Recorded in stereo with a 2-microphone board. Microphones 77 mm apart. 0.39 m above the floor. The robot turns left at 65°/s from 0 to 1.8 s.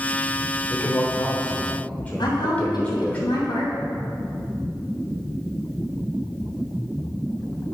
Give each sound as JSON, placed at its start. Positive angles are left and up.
{"t": 0.7, "sound": "a man speaking", "azimuth_deg": 110, "distance_m": 0.9}
{"t": 2.2, "sound": "a woman speaking", "side_deg": 65, "distance_m": 2.5}